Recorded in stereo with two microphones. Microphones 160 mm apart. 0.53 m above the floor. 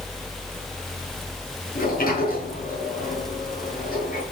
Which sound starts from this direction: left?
A sliding door, at 1.8 s.